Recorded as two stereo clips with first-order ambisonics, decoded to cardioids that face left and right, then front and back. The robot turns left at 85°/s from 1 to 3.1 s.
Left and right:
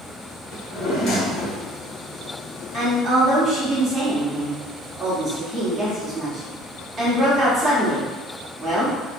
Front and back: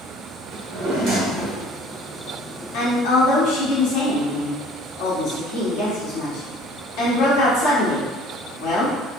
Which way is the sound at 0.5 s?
145° left.